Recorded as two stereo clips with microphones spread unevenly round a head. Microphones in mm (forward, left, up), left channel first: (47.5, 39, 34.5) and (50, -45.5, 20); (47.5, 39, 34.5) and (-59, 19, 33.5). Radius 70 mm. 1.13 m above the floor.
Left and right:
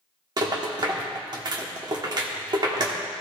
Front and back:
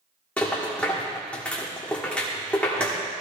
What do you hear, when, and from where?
0.4 s a rattle: 65° right, 1.3 m